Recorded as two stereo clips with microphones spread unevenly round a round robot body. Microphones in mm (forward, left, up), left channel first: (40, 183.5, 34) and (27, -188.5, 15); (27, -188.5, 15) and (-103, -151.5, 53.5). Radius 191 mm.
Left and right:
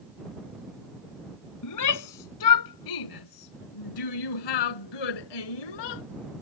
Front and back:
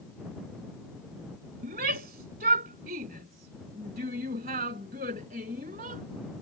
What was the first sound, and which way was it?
A shout, 130° left.